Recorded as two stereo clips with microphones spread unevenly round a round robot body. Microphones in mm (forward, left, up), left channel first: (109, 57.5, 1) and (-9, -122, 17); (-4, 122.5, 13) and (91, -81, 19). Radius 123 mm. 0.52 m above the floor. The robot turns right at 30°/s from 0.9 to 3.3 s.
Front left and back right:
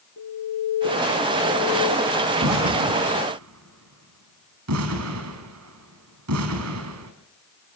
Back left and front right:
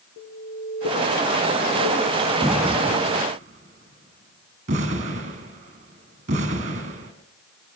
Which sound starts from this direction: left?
An alarm, at 0.2 s.